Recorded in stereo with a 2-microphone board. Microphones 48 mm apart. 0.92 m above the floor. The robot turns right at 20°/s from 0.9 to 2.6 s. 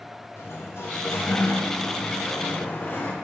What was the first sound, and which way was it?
A sliding door, 100° left.